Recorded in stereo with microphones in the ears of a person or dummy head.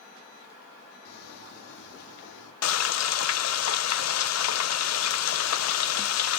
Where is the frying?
85° left, 0.8 m.